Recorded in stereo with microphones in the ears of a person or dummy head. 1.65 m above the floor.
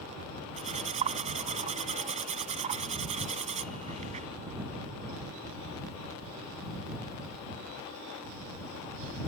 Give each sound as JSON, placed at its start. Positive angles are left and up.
{"t": 0.6, "sound": "cutlery clinking", "side_deg": -35}